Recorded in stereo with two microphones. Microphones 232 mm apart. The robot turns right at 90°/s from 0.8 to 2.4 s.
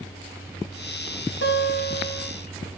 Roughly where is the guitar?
Left.